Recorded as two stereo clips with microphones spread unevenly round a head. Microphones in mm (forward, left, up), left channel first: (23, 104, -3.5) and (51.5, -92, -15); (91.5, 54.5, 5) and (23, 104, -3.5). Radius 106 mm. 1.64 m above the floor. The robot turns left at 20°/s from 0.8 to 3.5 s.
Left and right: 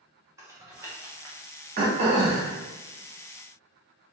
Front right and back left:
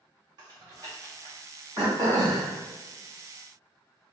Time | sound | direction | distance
0.4 | typing on a keyboard | 160° right | 0.6 m
1.8 | throat clearing | 135° right | 0.6 m